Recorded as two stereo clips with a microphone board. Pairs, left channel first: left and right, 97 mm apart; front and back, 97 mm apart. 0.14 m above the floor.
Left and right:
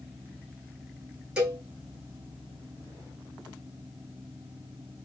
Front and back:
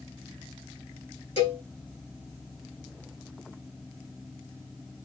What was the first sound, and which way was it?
A cowbell, 5° right.